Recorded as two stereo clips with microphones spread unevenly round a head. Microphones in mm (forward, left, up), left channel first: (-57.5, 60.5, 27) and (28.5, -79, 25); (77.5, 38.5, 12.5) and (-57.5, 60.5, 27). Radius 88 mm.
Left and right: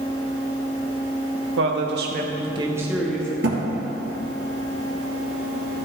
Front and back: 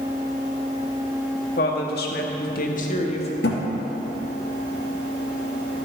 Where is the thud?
25° right, 2.5 m.